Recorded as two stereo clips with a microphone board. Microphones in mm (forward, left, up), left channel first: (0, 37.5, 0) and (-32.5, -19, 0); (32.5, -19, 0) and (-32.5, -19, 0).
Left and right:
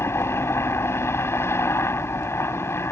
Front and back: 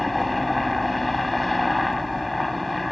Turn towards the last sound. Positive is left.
turn(degrees=90)